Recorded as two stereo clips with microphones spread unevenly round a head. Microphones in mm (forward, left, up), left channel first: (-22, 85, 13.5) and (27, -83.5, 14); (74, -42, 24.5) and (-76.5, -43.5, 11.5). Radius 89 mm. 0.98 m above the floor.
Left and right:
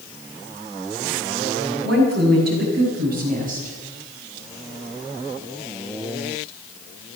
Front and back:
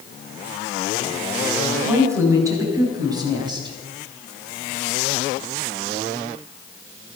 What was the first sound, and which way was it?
A woman speaking, 105° right.